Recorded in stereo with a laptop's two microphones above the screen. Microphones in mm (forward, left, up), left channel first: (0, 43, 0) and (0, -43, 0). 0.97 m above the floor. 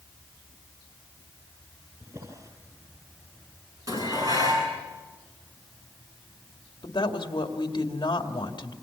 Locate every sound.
2.0 s a drawer: 40° right (ahead or behind), 7.5 m
3.9 s dishes clattering: 40° right (ahead or behind), 8.5 m
6.8 s a woman speaking: 55° left (ahead or behind), 2.5 m